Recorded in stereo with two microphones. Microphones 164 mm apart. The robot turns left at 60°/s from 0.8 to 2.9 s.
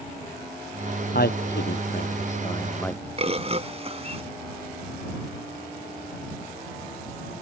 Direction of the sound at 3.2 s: 40° right (ahead or behind).